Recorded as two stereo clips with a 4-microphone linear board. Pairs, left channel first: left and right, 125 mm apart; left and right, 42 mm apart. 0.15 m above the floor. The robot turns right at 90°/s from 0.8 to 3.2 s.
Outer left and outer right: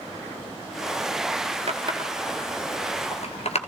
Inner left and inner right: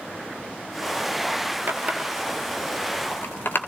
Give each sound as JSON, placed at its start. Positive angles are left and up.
{"t": 1.7, "sound": "a running tap", "side_deg": -55, "distance_m": 1.6}